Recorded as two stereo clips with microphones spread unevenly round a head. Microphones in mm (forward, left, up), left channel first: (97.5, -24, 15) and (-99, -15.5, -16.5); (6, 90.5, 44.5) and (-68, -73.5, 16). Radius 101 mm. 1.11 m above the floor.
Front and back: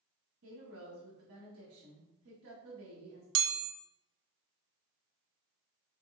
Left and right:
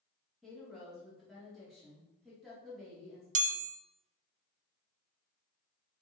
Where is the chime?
160° right, 0.6 m.